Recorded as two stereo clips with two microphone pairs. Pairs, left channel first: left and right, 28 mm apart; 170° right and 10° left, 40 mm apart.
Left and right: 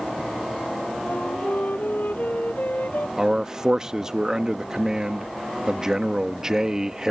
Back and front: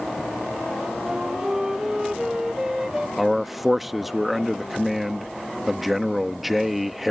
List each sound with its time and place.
1.1 s a flute: 90° left
3.2 s a man speaking: 70° right